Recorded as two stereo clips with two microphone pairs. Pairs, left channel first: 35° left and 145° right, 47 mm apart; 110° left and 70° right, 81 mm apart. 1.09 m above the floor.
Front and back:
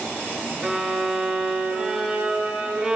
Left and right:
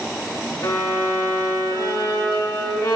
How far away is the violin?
About 2 m.